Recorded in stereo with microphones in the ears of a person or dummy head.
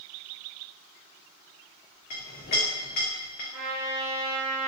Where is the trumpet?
5° right (ahead or behind), 1.3 m.